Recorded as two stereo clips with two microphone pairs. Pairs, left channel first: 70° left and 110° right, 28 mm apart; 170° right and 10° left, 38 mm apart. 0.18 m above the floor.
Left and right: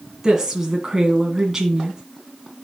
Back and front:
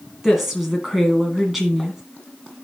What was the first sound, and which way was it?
A woman speaking, 65° right.